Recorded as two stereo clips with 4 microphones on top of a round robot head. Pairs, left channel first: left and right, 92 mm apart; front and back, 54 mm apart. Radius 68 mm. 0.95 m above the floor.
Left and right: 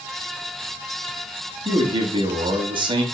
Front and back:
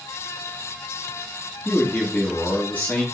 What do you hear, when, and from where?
1.6 s a man speaking: 60° right, 2.5 m